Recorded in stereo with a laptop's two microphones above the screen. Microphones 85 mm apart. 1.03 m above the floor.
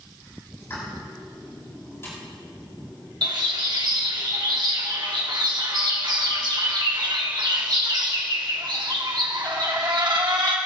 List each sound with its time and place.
0.6 s a pop: 30° left (ahead or behind), 5 m
3.2 s a bird: 60° right (ahead or behind), 1.4 m